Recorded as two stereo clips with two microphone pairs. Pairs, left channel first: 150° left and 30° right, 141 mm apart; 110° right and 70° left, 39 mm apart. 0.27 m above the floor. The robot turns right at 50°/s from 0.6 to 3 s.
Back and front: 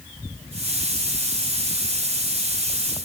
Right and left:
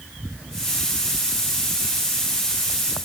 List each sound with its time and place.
Only background noise.